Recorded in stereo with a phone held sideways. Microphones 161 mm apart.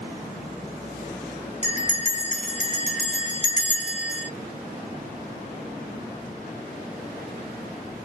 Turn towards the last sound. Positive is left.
turn(degrees=50)  # may be behind; listen again after turning